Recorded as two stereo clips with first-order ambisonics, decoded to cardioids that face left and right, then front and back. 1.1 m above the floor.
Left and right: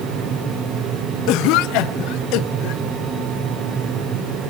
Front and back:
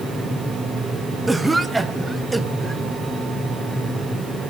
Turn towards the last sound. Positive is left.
turn(degrees=100)